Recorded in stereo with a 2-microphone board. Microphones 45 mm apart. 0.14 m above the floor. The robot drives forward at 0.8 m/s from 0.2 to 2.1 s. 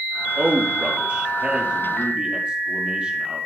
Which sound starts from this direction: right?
A man speaking, at 0.4 s.